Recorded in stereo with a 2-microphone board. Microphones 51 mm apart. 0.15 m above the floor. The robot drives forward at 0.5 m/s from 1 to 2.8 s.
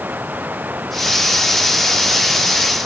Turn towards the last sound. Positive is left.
turn(degrees=-35)  # may be behind; listen again after turning